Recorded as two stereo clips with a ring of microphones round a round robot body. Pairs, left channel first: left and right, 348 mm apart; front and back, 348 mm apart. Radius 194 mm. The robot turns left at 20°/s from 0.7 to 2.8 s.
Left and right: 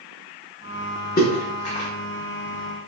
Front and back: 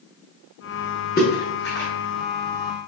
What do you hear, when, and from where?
1.2 s a splash: 45° left, 0.6 m; by 1.9 s 30° left, 0.6 m